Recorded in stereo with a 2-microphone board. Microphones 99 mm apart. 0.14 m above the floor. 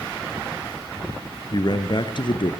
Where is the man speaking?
45° left (ahead or behind), 2.0 m; by 2.5 s 55° left (ahead or behind), 2 m.